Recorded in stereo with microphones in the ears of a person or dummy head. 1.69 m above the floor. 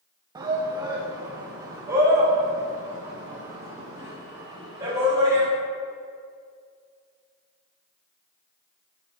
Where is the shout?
25° right (ahead or behind), 1.0 m; by 5.5 s 20° right (ahead or behind), 4 m.